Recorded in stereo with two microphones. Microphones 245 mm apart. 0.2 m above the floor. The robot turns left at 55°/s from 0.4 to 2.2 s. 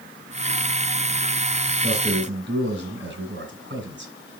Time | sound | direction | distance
1.8 | a man speaking | 35° right (ahead or behind) | 2.5 m